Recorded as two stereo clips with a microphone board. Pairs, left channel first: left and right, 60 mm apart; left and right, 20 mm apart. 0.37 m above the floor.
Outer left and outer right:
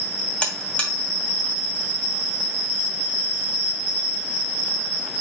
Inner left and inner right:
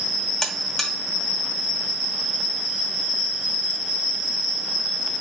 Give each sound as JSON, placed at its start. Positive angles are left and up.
{"t": 0.4, "sound": "a buzzer", "side_deg": 20, "distance_m": 1.0}